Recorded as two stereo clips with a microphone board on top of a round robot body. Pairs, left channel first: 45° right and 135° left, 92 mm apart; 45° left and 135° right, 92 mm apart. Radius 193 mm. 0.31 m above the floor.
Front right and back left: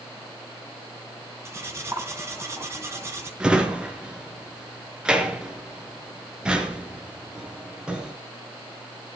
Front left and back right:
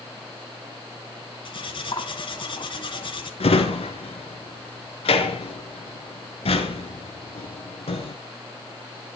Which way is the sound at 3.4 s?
55° left.